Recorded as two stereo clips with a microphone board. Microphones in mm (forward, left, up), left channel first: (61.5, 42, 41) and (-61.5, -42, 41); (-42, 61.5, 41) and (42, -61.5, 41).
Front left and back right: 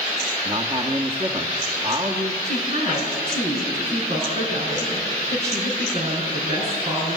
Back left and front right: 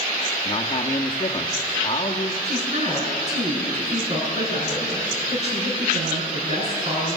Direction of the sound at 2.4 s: 100° right.